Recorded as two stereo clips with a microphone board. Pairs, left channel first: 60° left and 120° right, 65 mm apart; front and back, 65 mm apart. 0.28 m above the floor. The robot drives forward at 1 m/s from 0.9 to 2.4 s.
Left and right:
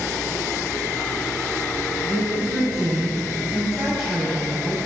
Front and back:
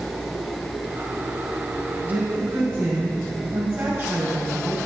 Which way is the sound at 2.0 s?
170° left.